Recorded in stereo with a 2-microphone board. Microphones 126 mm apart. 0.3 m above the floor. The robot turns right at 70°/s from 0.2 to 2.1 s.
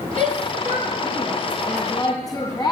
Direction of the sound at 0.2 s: 75° right (ahead or behind).